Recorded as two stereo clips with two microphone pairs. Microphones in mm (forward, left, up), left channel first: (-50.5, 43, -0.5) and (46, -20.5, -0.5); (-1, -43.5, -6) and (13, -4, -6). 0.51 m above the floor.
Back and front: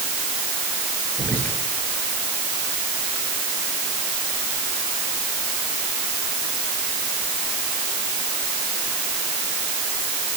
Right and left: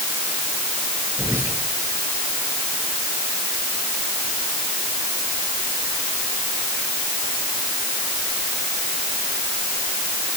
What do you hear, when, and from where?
1.2 s whispering: 75° left, 8.5 m